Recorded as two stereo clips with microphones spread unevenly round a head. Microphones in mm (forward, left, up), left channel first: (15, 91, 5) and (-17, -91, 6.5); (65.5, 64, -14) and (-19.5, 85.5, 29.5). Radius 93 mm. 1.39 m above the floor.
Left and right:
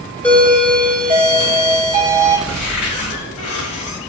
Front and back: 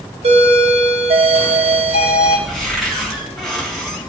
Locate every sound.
0.2 s a doorbell: 165° left, 3.5 m
2.5 s a cupboard door: 80° left, 4.5 m